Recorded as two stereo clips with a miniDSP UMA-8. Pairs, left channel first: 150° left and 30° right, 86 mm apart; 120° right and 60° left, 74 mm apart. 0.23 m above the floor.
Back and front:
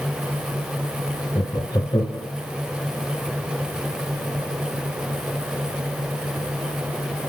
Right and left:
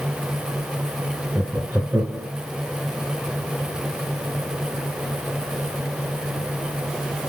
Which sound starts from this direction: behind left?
Laughter, at 1.4 s.